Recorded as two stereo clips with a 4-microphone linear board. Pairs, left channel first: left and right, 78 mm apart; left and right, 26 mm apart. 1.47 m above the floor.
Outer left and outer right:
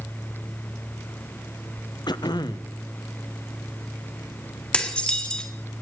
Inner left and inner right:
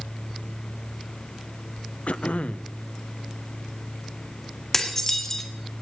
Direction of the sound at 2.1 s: 65° left (ahead or behind).